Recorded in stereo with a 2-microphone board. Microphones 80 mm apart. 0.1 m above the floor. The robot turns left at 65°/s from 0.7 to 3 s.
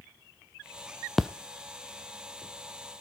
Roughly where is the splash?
Centre.